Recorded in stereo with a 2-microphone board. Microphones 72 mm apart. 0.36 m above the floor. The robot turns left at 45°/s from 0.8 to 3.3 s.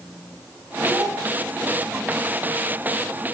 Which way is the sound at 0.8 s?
30° right (ahead or behind).